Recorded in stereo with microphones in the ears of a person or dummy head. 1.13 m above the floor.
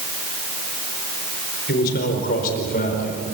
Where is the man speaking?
55° left (ahead or behind), 4.5 m; by 3.2 s 45° left (ahead or behind), 5 m.